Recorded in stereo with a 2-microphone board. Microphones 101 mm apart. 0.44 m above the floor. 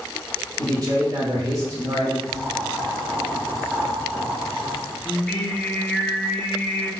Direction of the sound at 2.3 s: 5° right (ahead or behind).